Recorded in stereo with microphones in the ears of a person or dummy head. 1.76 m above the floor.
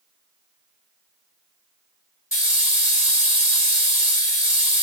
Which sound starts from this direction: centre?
A hiss, at 2.3 s.